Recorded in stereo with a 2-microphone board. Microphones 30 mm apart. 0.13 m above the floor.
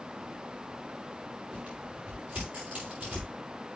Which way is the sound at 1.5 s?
80° right.